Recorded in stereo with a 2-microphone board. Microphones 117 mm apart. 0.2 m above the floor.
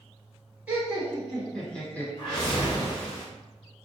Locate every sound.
0.7 s laughter: 15° right (ahead or behind), 2.0 m; by 2.1 s 15° left (ahead or behind), 1.5 m
2.2 s a whoosh: 40° left (ahead or behind), 1.4 m